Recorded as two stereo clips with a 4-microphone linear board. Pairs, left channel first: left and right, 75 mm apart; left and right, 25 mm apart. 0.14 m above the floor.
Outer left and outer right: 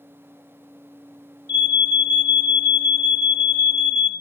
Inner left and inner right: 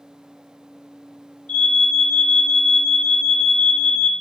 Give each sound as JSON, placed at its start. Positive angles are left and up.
{"t": 1.5, "sound": "an alarm", "side_deg": 50, "distance_m": 1.5}